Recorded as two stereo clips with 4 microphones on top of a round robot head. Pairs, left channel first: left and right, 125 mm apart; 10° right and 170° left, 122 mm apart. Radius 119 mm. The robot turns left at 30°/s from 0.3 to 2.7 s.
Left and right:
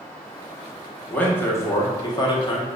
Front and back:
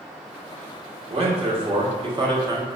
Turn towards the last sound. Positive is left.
turn(degrees=120)